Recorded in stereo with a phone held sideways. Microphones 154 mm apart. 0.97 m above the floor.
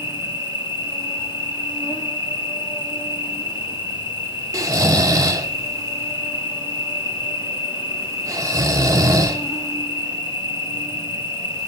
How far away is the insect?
About 1.9 m.